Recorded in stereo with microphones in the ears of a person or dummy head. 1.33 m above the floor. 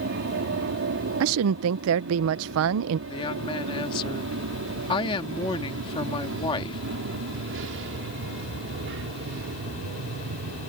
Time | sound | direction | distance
0.0 | an aircraft | 55° right (ahead or behind) | ?
1.2 | a woman speaking | 70° right (ahead or behind) | ?
3.1 | a woman speaking | 25° left (ahead or behind) | ?